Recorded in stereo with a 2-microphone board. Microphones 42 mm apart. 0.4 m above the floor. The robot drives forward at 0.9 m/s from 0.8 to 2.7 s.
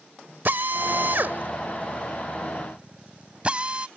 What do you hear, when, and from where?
0.5 s a drill: 50° right (ahead or behind); by 3.9 s 30° right (ahead or behind)